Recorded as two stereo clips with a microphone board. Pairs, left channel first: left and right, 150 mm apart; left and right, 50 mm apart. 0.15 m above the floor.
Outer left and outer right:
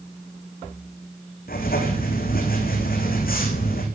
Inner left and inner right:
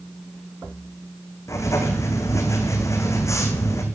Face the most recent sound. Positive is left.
turn(degrees=85)